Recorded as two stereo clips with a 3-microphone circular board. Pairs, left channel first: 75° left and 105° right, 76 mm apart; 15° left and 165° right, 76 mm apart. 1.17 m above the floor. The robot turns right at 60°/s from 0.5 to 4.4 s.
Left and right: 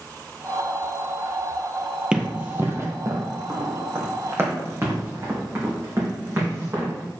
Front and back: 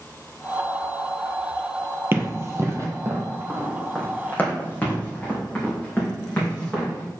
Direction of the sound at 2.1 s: 170° right.